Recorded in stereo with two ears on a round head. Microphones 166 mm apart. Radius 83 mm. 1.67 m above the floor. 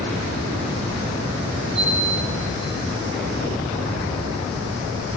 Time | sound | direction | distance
1.8 | a chime | 70° right (ahead or behind) | 4 m